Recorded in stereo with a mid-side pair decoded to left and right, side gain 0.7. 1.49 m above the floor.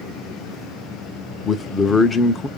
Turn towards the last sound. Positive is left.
turn(degrees=20)